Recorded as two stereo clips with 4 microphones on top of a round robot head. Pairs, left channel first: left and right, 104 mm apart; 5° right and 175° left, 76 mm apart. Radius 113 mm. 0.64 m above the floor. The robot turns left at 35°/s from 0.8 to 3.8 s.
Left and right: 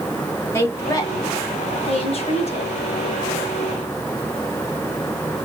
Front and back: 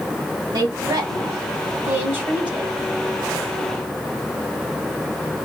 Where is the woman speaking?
155° left, 2.5 m; by 2.8 s 85° left, 2.5 m.